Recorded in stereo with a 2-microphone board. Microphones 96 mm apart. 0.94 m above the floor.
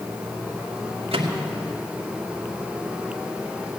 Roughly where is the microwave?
Right.